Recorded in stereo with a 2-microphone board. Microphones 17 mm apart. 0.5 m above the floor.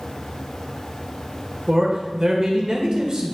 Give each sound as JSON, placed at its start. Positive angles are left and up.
{"t": 1.7, "sound": "a man speaking", "side_deg": -45, "distance_m": 1.9}